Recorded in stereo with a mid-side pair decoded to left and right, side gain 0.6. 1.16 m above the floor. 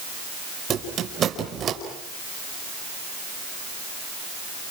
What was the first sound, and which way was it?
A squeak, 45° right.